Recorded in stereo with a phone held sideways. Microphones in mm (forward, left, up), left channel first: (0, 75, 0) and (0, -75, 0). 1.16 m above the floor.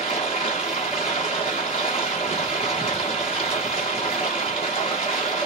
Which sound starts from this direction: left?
Running water, at 0.0 s.